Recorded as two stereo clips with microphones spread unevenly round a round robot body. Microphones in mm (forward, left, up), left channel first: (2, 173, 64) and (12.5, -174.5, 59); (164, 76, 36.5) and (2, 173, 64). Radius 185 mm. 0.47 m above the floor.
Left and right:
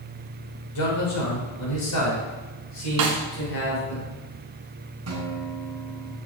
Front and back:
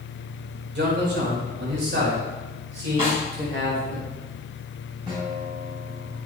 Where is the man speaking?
125° left, 4 m; by 4.0 s 145° left, 5 m.